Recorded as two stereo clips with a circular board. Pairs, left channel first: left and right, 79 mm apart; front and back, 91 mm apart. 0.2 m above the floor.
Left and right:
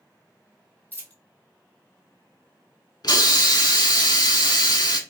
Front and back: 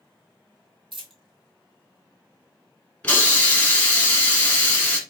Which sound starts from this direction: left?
A hiss, at 3.0 s.